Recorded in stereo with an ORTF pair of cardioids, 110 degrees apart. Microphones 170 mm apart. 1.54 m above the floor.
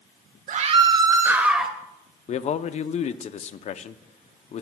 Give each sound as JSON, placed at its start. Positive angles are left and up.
{"t": 0.5, "sound": "a scream", "azimuth_deg": -45, "distance_m": 1.4}
{"t": 2.3, "sound": "a man speaking", "azimuth_deg": 40, "distance_m": 0.7}